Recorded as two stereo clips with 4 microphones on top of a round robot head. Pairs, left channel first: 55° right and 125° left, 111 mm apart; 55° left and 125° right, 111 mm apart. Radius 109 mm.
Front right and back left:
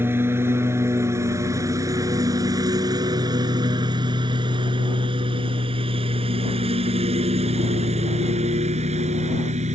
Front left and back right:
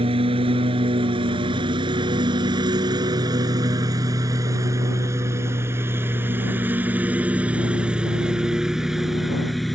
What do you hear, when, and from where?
0.0 s a lawn mower: 165° right; by 9.8 s 145° left